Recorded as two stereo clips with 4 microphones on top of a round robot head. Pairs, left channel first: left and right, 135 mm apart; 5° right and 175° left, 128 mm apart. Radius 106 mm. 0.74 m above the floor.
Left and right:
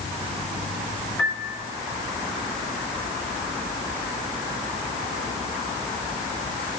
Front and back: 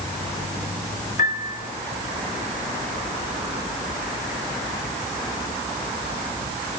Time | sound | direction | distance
1.2 | a piano | 5° left | 2.5 m